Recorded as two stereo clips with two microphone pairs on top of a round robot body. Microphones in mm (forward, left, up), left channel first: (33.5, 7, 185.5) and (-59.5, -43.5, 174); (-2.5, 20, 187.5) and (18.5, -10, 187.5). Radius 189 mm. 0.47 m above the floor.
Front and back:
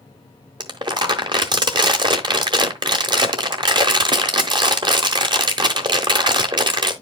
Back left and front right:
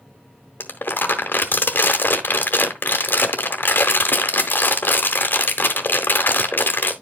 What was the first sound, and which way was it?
Crumpling, 160° left.